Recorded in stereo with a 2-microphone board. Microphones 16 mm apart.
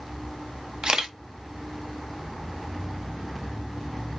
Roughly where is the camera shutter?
Right.